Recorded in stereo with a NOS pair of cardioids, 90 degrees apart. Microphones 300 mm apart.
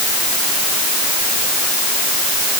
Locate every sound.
Only background noise.